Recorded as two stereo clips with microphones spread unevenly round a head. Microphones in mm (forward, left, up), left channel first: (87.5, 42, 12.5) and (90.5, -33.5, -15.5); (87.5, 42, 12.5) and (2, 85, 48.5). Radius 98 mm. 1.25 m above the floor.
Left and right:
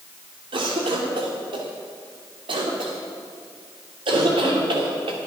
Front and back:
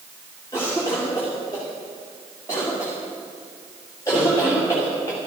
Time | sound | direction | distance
0.5 | a cough | 100° right | 2.5 m